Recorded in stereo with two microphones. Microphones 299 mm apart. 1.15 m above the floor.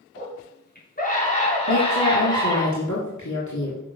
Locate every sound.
0.1 s a scream: 40° left (ahead or behind), 3.5 m; by 2.7 s 10° left (ahead or behind), 4.5 m
1.7 s a woman speaking: 70° left (ahead or behind), 3 m